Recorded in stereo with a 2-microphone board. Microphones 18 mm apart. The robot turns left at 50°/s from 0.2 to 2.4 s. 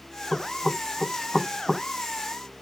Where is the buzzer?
No buzzer in this recording.